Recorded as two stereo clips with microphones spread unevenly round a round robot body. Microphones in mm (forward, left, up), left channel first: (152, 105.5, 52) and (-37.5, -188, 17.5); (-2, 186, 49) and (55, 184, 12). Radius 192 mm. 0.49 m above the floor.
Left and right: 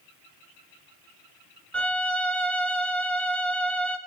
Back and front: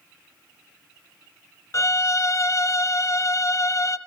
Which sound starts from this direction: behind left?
A violin, at 1.7 s.